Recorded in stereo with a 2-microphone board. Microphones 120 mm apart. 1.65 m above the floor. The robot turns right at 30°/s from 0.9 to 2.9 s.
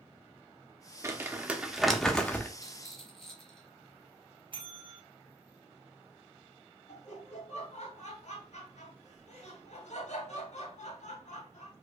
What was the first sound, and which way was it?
Crumpling, 25° right (ahead or behind).